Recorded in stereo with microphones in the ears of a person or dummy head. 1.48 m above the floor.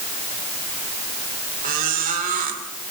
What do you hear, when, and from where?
1.6 s a squeak: 45° right (ahead or behind), 3 m